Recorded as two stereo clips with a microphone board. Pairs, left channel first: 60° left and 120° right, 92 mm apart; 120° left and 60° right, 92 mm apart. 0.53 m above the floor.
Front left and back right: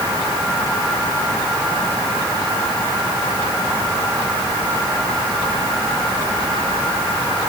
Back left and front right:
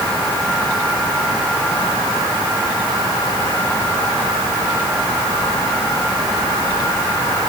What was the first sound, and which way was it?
Only background noise.